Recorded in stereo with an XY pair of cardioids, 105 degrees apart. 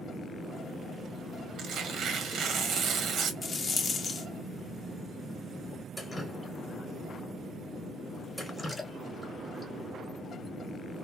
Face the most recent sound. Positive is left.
turn(degrees=10)